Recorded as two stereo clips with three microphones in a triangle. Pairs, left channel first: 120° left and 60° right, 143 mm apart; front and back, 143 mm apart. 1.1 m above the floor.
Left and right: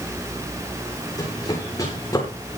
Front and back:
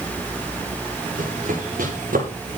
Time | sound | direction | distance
1.2 | running footsteps | straight behind | 9.5 m